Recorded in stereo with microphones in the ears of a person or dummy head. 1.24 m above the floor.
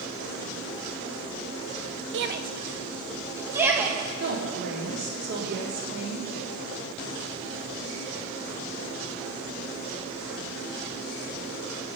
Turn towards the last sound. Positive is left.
turn(degrees=-55)  # may be behind; listen again after turning